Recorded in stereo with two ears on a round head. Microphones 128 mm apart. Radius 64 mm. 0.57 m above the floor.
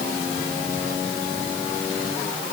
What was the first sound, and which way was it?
Only background noise.